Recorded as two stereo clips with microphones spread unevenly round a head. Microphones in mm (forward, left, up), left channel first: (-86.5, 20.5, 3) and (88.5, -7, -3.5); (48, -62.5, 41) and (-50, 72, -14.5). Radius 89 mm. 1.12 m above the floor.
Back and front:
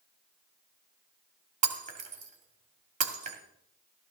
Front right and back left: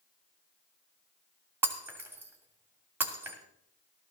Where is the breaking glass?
40° left, 2 m.